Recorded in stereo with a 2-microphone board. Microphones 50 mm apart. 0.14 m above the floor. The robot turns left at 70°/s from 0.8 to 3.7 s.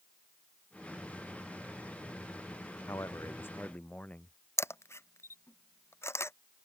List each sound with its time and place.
2.9 s a man speaking: 85° left; by 4.4 s 30° left
4.6 s a camera shutter: 60° left (ahead or behind)